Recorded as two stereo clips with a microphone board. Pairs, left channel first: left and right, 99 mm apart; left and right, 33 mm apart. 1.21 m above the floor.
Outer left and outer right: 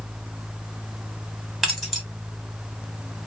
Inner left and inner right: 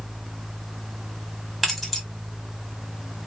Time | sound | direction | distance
1.6 | keys jangling | centre (ahead or behind) | 1.4 m